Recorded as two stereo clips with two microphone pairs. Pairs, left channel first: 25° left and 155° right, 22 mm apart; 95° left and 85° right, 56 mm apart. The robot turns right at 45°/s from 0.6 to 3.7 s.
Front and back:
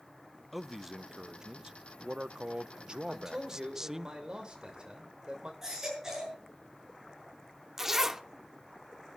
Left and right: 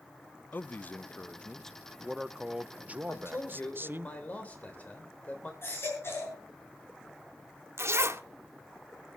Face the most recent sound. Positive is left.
turn(degrees=-90)